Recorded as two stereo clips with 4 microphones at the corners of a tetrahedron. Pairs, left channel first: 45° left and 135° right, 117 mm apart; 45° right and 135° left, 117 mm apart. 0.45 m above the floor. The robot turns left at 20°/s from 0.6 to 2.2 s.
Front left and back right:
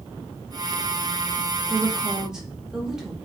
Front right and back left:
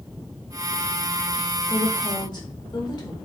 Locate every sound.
1.7 s a woman speaking: 45° right, 1.0 m; by 3.1 s 55° right, 1.0 m